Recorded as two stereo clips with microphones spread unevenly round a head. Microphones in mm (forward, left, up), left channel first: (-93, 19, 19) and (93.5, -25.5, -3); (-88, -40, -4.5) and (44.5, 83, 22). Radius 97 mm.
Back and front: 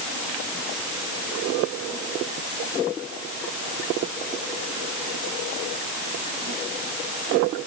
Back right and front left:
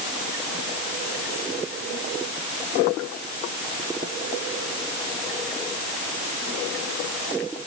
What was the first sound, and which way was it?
Only background noise.